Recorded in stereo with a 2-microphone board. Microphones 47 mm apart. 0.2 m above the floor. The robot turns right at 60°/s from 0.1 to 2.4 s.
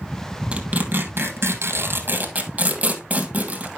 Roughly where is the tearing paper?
Right.